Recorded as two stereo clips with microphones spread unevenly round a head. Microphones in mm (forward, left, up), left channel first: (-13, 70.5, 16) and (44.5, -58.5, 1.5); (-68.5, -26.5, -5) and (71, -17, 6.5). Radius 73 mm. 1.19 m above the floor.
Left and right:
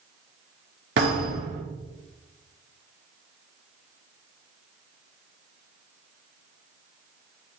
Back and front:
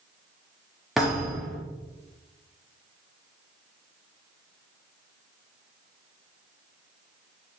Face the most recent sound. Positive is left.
turn(degrees=-85)